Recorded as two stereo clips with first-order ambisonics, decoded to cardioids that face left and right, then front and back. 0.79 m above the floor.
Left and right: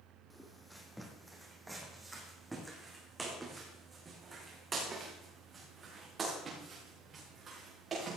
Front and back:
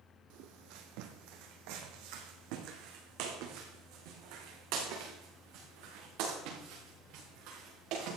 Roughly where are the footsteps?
Behind.